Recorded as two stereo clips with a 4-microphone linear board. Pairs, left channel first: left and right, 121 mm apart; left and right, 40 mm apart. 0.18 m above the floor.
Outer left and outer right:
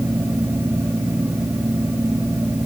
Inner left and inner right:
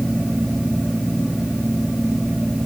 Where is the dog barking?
No dog barking in this recording.